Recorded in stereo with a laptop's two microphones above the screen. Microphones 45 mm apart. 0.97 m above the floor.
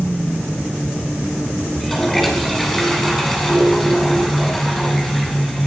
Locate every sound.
1.7 s a toilet flushing: 10° left (ahead or behind), 5.5 m